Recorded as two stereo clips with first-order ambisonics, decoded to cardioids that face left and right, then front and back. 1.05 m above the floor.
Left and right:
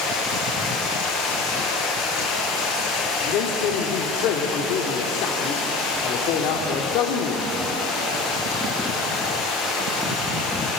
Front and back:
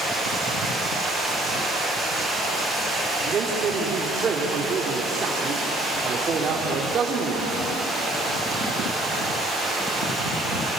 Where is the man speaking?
115° left, 2.5 m.